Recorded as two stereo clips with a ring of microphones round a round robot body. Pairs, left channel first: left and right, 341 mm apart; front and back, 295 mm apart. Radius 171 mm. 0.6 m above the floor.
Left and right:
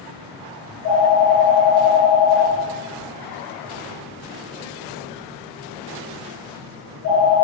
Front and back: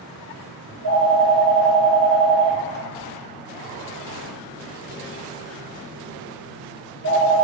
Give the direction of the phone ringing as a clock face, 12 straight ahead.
5 o'clock.